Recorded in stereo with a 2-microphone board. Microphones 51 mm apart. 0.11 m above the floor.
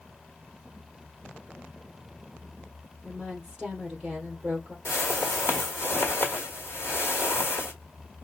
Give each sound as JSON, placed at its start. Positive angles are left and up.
{"t": 3.0, "sound": "a woman speaking", "side_deg": -15, "distance_m": 2.5}
{"t": 4.8, "sound": "a whoosh", "side_deg": 60, "distance_m": 1.3}